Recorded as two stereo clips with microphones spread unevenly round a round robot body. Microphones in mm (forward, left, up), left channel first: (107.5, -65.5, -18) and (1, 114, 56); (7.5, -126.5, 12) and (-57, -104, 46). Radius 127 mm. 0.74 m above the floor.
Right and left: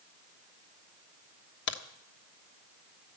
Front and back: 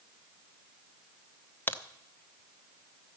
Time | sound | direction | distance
1.7 | a crack | 65° right | 1.2 m